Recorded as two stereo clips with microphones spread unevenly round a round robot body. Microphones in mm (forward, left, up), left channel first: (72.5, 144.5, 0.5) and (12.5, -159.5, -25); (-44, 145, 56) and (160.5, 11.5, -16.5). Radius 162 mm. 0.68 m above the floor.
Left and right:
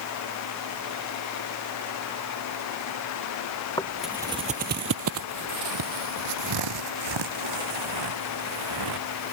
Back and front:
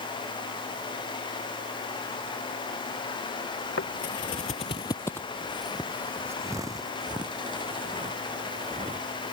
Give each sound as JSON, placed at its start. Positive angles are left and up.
{"t": 3.8, "sound": "footsteps", "azimuth_deg": 150}